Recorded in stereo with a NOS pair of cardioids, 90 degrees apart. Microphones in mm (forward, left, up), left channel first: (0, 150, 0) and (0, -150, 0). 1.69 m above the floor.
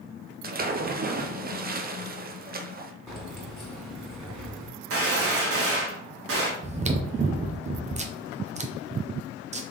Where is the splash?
30° right, 0.7 m.